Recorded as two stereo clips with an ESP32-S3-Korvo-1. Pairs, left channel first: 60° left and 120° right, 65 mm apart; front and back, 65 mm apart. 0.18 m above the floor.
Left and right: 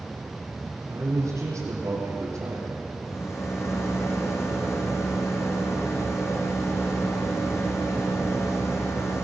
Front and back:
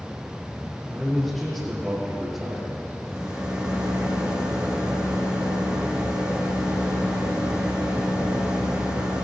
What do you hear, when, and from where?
0.9 s a man speaking: 85° right, 5 m
3.0 s a rattle: 105° left, 5 m